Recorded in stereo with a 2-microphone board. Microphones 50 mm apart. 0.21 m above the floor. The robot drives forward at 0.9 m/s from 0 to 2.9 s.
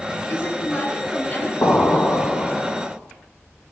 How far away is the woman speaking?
About 1.7 m.